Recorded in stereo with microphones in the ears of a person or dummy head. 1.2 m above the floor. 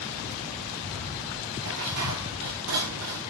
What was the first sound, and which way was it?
Dishes clattering, 70° right (ahead or behind).